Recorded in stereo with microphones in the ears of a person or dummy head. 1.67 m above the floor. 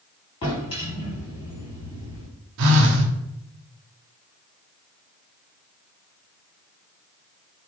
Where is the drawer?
25° left (ahead or behind), 1.7 m.